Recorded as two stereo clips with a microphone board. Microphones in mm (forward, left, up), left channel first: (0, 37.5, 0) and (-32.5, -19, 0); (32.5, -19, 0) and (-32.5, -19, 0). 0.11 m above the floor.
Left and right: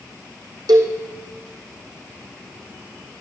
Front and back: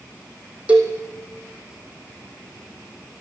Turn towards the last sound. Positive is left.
turn(degrees=-110)